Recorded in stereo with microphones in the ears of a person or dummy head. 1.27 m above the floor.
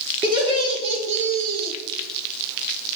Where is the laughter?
25° right (ahead or behind), 2.5 m; by 1.7 s 60° right (ahead or behind), 1.0 m.